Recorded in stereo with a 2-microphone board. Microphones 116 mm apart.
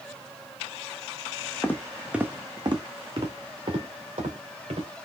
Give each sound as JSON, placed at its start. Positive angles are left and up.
{"t": 1.6, "sound": "footsteps", "side_deg": 20, "distance_m": 0.9}